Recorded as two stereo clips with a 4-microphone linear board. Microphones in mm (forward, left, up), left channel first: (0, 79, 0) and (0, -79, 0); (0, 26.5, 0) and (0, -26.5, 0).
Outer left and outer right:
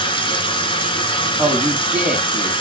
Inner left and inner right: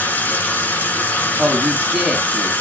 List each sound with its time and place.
0.0 s running water: 30° left (ahead or behind), 1.3 m
1.4 s a man speaking: 5° right (ahead or behind), 1.3 m